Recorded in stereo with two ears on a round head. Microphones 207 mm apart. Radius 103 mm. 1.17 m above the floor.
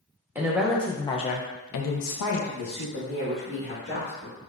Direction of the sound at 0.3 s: 10° right (ahead or behind).